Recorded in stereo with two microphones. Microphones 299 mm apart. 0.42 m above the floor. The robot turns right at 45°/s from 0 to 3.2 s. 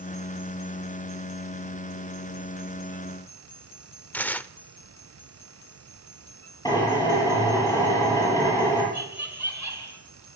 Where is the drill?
15° left (ahead or behind), 10 m.